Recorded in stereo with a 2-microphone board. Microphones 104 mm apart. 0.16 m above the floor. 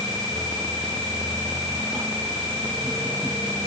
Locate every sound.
Only background noise.